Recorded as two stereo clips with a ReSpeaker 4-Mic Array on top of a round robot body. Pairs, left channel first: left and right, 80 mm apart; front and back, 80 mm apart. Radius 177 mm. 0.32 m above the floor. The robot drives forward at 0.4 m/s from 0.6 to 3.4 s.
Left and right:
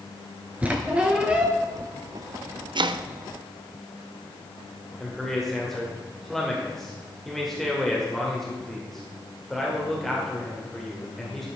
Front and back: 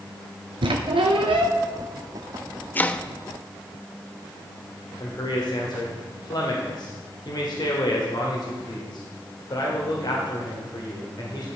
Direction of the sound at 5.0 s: 5° left.